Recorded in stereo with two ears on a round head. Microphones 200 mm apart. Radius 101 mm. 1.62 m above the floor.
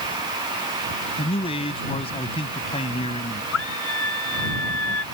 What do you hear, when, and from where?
1.2 s a man speaking: 25° left (ahead or behind)
3.5 s a scream: 65° left (ahead or behind)